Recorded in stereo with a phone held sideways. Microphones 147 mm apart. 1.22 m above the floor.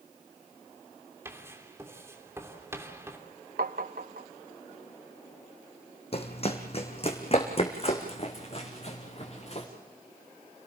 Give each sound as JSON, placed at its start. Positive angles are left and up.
{"t": 1.2, "sound": "writing", "side_deg": -15, "distance_m": 3.0}
{"t": 3.6, "sound": "tapping", "side_deg": -80, "distance_m": 0.8}
{"t": 6.1, "sound": "running footsteps", "side_deg": 45, "distance_m": 2.5}